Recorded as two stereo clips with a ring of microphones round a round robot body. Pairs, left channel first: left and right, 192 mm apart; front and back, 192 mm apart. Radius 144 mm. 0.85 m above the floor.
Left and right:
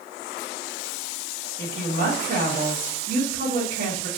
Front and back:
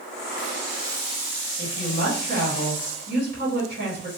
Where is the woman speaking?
140° right, 1.2 m.